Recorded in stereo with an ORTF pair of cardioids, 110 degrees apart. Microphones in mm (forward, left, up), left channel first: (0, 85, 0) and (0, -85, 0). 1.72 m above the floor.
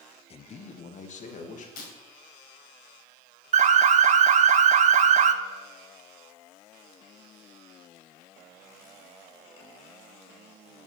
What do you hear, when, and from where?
0.3 s a man speaking: 35° left, 0.8 m; by 1.7 s 45° left, 3 m
1.8 s breaking glass: 65° left, 5 m
3.5 s an alarm: 45° right, 1.0 m